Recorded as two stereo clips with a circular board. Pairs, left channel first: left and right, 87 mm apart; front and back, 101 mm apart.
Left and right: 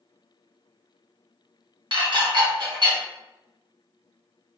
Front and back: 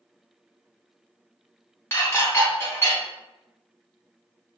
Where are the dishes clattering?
65° right, 1.0 m.